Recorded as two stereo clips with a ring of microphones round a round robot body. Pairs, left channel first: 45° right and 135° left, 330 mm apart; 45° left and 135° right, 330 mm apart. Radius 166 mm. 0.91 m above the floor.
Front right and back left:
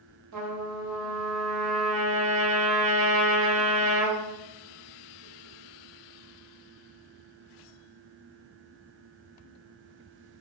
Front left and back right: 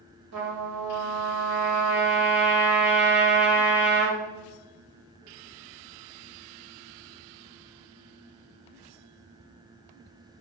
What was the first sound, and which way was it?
A trumpet, straight behind.